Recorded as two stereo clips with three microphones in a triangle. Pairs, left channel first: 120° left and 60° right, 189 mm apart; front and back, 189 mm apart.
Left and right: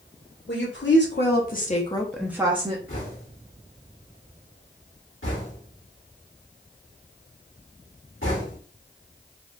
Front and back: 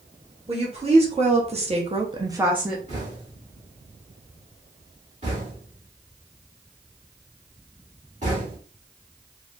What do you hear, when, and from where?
0.5 s a woman speaking: 120° left, 1.5 m; by 2.8 s 90° right, 0.7 m
2.9 s knocking: 125° left, 1.7 m